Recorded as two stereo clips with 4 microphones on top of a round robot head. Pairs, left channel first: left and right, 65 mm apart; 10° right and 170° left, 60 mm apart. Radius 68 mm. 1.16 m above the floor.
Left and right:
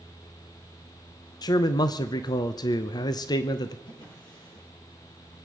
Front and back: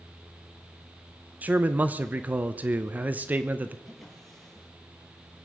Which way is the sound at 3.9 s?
75° left.